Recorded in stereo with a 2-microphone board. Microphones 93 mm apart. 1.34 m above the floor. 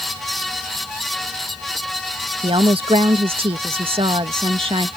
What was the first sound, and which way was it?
A woman speaking, 80° right.